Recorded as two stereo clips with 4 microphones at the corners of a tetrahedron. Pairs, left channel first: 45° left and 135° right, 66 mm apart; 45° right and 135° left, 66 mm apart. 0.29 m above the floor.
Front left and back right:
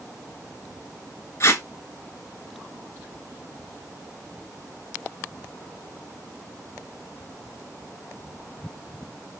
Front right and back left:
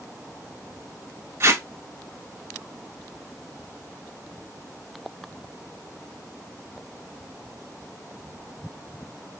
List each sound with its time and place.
1.4 s tape being pulled: 90° left, 0.7 m